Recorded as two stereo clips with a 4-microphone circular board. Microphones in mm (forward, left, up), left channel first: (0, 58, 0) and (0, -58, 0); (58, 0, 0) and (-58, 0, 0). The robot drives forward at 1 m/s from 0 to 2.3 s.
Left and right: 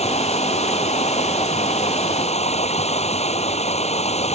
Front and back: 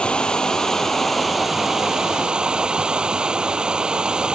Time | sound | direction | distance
0.0 | running water | 80° left | ?